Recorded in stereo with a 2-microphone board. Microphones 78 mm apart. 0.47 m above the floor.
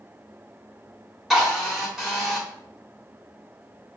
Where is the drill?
5° right (ahead or behind), 1.4 m.